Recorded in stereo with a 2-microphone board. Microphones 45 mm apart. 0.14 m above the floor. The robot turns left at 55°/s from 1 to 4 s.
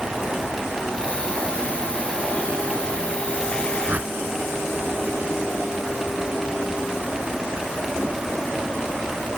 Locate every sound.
3.9 s a whoosh: 40° right (ahead or behind)